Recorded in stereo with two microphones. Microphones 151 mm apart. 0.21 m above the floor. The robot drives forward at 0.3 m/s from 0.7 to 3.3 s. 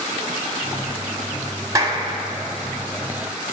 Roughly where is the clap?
Right.